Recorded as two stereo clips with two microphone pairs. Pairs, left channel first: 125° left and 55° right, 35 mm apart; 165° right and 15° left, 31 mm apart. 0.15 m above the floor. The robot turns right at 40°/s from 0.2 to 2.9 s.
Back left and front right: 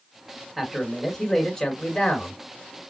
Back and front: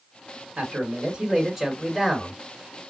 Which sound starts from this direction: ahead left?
A man speaking, at 0.6 s.